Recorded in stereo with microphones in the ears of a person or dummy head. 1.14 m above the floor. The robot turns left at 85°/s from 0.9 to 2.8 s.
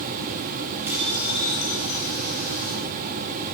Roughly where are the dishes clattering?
Behind.